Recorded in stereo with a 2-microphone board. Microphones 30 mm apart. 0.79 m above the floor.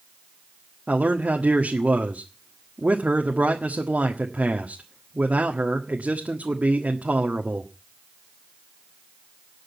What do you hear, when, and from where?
0.9 s a man speaking: 65° right (ahead or behind), 1.5 m